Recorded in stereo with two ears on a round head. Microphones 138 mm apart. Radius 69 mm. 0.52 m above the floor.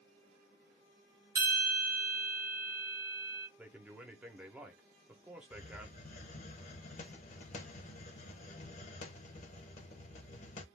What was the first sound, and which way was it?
A bell, 20° right (ahead or behind).